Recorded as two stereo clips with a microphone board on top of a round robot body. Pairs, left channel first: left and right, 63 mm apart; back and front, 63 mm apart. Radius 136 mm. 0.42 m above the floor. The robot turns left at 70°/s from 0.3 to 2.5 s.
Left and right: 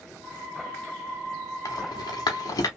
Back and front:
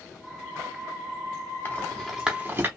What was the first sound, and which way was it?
A rattle, 120° left.